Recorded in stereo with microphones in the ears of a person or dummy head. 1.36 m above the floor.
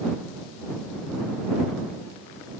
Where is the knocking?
No knocking in this recording.